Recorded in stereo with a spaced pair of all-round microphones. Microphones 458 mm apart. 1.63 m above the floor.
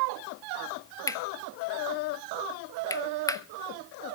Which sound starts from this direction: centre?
Cutlery clinking, at 1.1 s.